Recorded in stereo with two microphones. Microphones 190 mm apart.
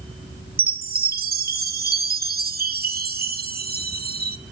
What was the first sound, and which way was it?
A chime, 50° right (ahead or behind).